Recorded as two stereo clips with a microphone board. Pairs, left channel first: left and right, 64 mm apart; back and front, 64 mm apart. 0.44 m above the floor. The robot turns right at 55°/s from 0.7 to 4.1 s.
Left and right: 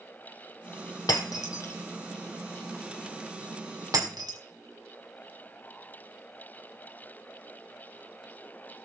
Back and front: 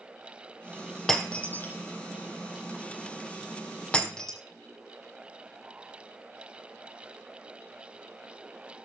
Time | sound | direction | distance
1.1 | breaking glass | 95° left | 2 m